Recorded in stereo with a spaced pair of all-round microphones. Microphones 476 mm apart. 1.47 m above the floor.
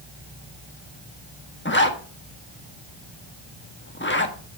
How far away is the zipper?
About 1.3 m.